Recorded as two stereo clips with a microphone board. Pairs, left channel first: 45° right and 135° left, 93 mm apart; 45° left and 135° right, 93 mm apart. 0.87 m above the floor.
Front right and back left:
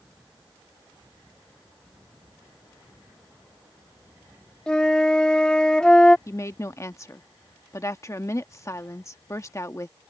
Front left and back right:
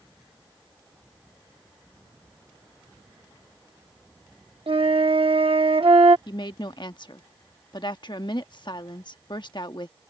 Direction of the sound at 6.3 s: 10° left.